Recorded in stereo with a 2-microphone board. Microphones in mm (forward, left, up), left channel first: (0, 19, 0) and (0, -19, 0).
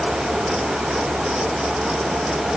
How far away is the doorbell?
I don't hear a doorbell.